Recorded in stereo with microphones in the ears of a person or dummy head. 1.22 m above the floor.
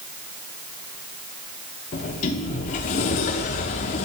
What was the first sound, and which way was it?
A sliding door, 30° left (ahead or behind).